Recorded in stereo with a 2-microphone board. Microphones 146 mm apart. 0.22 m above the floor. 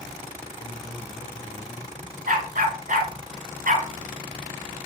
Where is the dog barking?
70° right (ahead or behind), 1.3 m.